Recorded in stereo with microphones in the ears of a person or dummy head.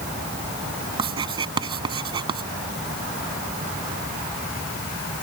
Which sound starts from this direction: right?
Writing, at 1.0 s.